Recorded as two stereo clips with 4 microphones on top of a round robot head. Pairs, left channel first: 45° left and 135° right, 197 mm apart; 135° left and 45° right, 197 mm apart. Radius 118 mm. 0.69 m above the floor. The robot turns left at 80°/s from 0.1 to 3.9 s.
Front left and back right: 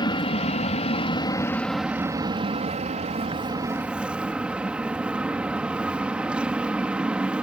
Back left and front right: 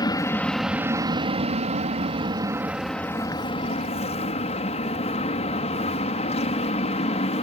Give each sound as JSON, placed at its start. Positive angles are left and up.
{"t": 0.0, "sound": "an aircraft", "azimuth_deg": 85}